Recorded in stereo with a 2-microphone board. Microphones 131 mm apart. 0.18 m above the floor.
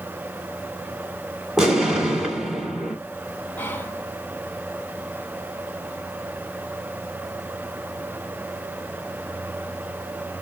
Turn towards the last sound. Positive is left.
turn(degrees=15)  # may be behind; listen again after turning